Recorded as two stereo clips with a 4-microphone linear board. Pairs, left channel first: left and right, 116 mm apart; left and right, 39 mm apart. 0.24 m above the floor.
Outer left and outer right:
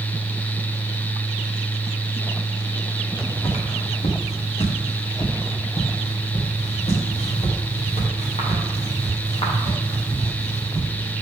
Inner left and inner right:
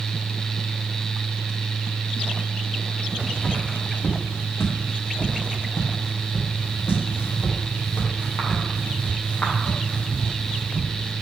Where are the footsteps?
55° left (ahead or behind), 3.5 m; by 11.1 s 45° left (ahead or behind), 7 m.